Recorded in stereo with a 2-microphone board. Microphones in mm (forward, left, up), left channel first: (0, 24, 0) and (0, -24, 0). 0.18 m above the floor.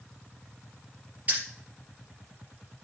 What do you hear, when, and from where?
1.3 s keys jangling: 35° right (ahead or behind), 2.5 m